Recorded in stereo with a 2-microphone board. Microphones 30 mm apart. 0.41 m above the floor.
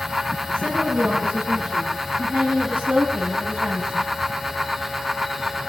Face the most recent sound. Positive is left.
turn(degrees=-40)  # may be behind; listen again after turning